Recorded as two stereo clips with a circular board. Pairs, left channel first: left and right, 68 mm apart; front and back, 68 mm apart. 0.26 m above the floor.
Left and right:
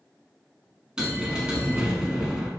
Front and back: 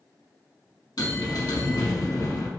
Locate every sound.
1.0 s a bell: 15° right, 1.0 m